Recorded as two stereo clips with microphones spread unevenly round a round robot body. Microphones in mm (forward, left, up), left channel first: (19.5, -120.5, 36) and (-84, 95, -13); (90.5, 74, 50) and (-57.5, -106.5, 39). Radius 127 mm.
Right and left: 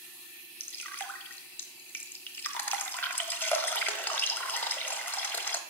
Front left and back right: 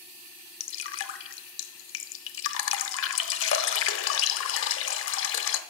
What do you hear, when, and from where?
0.6 s dripping: 15° left, 0.8 m